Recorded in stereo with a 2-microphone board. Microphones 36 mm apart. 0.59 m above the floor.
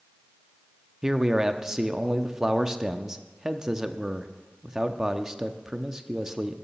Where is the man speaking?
15° right (ahead or behind), 0.6 m.